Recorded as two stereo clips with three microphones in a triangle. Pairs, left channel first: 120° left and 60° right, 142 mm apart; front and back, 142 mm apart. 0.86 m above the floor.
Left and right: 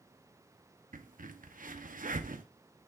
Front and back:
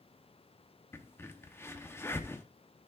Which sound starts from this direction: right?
A crack, at 0.9 s.